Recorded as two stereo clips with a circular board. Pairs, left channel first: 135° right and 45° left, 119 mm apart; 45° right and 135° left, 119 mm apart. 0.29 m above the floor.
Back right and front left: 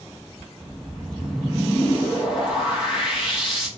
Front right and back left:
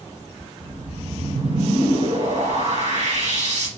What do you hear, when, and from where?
0.6 s a whoosh: 130° left, 5.5 m